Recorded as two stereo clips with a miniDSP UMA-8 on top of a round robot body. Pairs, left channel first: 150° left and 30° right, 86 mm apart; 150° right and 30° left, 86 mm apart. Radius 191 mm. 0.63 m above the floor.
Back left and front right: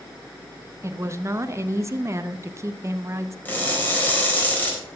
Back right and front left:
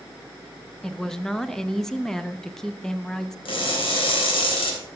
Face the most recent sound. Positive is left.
turn(degrees=-135)